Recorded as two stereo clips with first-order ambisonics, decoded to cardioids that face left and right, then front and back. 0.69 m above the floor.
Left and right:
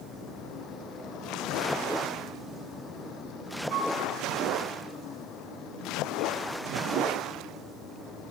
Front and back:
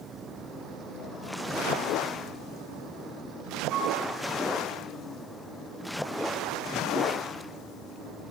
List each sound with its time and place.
3.7 s a flute: 135° right, 4.5 m